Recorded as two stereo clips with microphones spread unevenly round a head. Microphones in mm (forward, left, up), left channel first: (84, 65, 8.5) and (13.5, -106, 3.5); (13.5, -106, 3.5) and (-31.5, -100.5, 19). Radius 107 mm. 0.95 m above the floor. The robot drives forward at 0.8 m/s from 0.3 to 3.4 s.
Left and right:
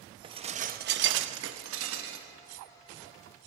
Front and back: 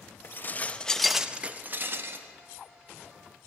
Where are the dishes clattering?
50° right, 0.9 m; by 2.3 s 145° right, 1.2 m.